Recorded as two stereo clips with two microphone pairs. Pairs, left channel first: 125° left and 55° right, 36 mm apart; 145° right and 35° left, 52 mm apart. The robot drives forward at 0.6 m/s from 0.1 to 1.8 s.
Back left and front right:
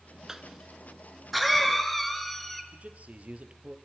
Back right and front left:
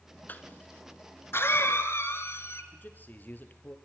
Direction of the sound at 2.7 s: 95° right.